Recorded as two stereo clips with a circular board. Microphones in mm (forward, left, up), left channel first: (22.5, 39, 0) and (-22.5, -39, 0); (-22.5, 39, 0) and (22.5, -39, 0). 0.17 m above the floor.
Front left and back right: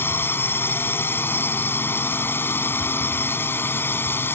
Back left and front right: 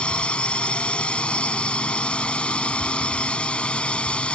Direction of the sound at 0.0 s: 60° left.